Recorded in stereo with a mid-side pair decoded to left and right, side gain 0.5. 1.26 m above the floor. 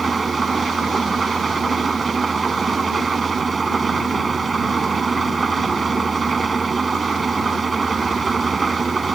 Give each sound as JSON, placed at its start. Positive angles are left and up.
{"t": 0.0, "sound": "an engine running", "azimuth_deg": -30}